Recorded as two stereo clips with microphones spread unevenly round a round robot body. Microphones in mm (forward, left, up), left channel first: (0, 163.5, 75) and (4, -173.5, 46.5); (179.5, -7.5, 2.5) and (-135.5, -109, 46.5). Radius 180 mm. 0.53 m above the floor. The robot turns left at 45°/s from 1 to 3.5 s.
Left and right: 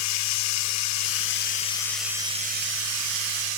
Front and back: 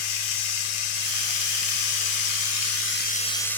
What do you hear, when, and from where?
0.0 s running water: 45° left, 0.9 m; by 3.6 s 65° right, 0.9 m